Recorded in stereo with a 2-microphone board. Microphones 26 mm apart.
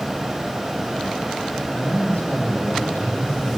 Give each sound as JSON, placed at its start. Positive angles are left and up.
{"t": 1.7, "sound": "a man speaking", "side_deg": 70, "distance_m": 7.5}